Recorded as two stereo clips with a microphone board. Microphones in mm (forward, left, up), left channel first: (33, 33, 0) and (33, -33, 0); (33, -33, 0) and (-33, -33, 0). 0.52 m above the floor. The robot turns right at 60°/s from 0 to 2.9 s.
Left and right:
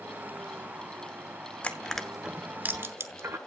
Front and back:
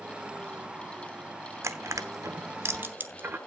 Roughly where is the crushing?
Behind left.